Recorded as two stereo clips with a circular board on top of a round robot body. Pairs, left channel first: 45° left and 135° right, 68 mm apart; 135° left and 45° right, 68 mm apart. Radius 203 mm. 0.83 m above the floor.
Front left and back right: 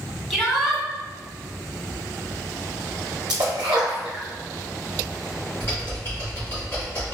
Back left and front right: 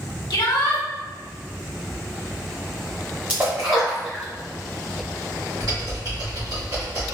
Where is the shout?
135° left, 1.6 m.